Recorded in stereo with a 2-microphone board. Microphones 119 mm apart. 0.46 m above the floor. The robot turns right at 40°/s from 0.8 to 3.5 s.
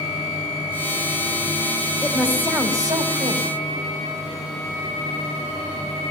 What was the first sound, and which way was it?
A woman speaking, straight behind.